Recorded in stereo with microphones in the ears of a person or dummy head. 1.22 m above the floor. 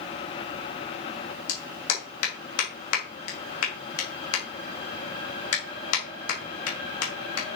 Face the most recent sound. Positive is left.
turn(degrees=80)